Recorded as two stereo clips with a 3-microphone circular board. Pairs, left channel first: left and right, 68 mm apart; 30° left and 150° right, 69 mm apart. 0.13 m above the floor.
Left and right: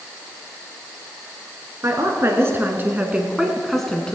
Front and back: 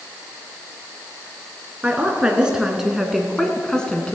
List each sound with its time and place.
1.8 s a woman speaking: 85° right, 2 m; by 4.1 s 50° left, 1.4 m